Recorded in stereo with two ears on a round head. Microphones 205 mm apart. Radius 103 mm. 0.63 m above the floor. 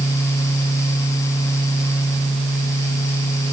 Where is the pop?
No pop in this recording.